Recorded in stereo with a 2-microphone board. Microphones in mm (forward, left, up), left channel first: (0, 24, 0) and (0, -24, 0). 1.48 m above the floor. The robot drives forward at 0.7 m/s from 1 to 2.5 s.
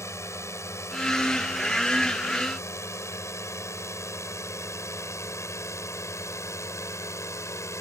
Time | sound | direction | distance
0.0 | a drone | 75° left (ahead or behind) | ?